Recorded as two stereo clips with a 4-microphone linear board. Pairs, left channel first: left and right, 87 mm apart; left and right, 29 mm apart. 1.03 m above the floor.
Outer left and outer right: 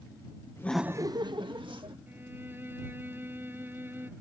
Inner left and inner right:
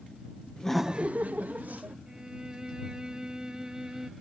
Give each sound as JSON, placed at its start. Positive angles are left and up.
{"t": 0.6, "sound": "laughter", "side_deg": 35}
{"t": 2.1, "sound": "a violin", "side_deg": -20}